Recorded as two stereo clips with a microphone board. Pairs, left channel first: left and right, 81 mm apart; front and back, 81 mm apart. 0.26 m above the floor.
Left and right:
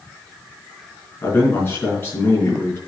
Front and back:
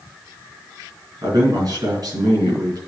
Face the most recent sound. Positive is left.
turn(degrees=150)